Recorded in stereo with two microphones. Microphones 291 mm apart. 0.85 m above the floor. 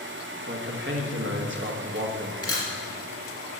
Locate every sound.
0.5 s a man speaking: 40° right (ahead or behind), 1.2 m
2.4 s a camera shutter: 55° left (ahead or behind), 2.5 m